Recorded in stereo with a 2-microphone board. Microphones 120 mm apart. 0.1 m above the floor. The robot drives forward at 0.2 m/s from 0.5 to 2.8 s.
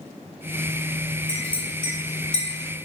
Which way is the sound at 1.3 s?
10° left (ahead or behind).